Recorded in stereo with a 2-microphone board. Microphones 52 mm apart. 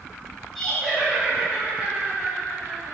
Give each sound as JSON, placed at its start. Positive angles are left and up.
{"t": 0.6, "sound": "laughter", "side_deg": 0, "distance_m": 1.4}